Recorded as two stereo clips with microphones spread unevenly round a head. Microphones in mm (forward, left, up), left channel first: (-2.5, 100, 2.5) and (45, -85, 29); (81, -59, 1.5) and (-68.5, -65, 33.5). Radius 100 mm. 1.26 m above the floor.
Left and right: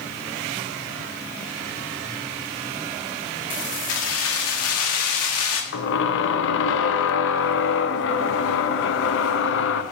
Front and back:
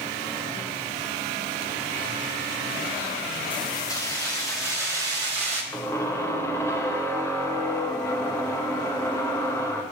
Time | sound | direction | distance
3.5 | keys jangling | 70° left | 1.8 m
5.7 | a squeak | 85° left | 0.6 m